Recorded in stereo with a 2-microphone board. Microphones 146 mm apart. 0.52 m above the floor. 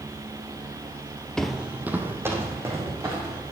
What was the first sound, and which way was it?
Footsteps, 5° left (ahead or behind).